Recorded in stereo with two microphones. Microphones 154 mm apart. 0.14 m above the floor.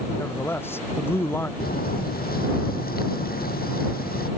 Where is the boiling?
80° left.